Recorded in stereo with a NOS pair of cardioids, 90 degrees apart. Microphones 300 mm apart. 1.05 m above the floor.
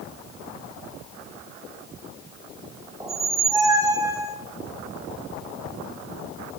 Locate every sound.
3.0 s a squeak: 10° right, 0.9 m